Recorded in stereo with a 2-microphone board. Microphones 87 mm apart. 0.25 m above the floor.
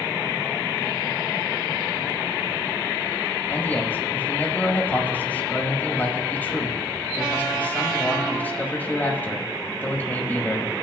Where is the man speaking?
20° left (ahead or behind), 1.0 m.